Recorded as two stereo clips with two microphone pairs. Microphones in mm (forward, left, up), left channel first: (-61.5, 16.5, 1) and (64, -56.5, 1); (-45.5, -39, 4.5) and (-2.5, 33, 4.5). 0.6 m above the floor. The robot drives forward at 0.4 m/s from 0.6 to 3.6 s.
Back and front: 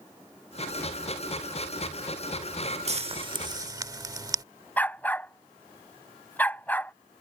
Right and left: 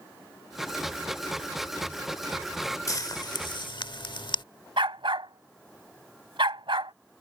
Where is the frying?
75° right; by 4.4 s 95° right.